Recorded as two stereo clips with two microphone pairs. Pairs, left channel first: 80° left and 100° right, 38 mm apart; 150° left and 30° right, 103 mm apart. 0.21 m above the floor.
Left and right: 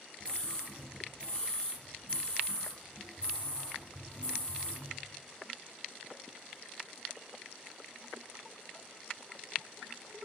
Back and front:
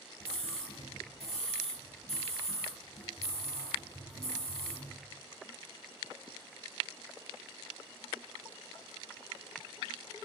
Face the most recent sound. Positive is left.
turn(degrees=145)